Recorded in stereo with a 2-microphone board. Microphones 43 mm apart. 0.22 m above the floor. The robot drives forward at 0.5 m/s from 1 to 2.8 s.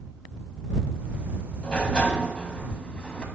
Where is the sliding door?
25° left (ahead or behind), 1.0 m; by 3.2 s 20° left (ahead or behind), 1.2 m.